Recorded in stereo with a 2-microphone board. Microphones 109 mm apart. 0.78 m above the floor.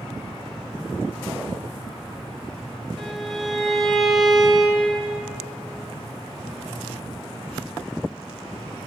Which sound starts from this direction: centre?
A violin, at 3.0 s.